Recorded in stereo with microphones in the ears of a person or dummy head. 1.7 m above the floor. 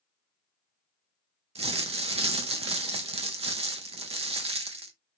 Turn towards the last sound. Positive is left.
turn(degrees=-35)  # may be behind; listen again after turning